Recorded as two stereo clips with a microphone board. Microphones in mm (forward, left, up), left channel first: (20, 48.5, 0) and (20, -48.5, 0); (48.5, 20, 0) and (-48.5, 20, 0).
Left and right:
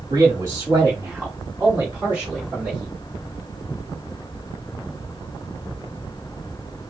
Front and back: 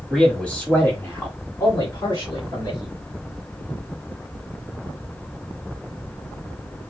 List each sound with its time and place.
0.1 s a man speaking: 85° right, 1.2 m; by 2.9 s 10° right, 2.5 m